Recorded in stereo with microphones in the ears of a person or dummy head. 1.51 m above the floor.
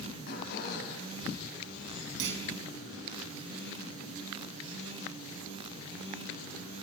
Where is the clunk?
70° right (ahead or behind), 4.5 m.